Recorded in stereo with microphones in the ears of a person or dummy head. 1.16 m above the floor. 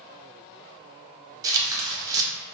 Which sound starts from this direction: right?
Tearing paper, at 1.4 s.